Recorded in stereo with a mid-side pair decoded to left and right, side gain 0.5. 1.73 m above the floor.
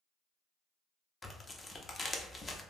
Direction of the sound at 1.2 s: 25° left.